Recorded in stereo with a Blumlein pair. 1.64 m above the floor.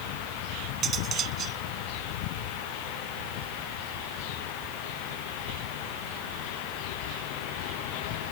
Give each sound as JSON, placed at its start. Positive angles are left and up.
{"t": 0.8, "sound": "cutlery clinking", "azimuth_deg": -25}